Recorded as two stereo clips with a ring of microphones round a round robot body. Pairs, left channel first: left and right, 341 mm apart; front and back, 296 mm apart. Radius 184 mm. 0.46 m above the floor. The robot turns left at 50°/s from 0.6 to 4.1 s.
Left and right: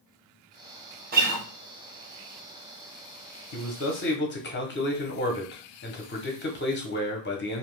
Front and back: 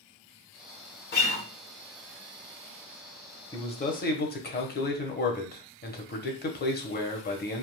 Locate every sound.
1.1 s a guitar: 35° right, 1.2 m; by 1.4 s 55° right, 1.2 m
3.5 s a man speaking: 75° left, 1.0 m; by 7.6 s 45° left, 1.0 m